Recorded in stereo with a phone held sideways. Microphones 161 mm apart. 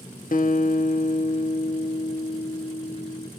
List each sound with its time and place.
0.3 s a guitar: 65° left (ahead or behind), 0.8 m